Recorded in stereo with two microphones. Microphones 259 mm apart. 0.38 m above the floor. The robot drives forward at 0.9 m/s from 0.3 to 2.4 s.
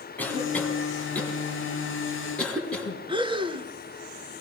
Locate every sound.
0.2 s a cough: 5° left (ahead or behind), 3.5 m
3.1 s breathing: 20° right (ahead or behind), 0.5 m